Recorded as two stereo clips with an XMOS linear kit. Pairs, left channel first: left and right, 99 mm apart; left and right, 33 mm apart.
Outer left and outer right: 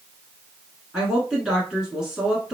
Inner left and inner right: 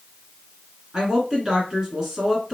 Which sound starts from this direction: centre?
A woman speaking, at 0.9 s.